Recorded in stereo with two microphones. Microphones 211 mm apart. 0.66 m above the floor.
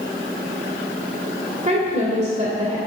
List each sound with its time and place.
1.6 s a woman speaking: 35° right (ahead or behind), 2.5 m